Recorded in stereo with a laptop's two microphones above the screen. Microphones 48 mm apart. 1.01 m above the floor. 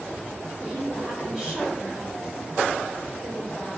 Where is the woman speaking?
15° right (ahead or behind), 3 m.